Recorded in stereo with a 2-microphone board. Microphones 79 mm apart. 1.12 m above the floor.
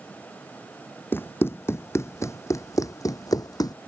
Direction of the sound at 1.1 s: 30° left (ahead or behind).